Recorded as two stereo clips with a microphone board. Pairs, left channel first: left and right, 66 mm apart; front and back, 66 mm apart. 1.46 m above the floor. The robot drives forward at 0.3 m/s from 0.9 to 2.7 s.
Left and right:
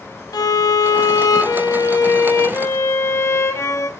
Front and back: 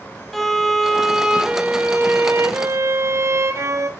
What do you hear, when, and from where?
0.3 s a violin: 85° left, 0.5 m; by 3.9 s 135° left, 0.7 m